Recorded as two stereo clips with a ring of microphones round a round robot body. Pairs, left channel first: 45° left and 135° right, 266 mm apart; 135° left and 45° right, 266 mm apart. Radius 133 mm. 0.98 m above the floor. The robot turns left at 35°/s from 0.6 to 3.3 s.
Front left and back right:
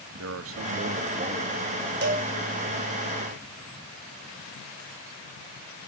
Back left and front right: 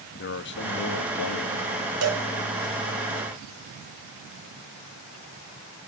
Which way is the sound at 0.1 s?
175° right.